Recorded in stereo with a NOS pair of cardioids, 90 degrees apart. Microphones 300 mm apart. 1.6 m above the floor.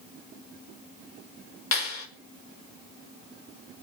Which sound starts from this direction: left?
A clap, at 1.7 s.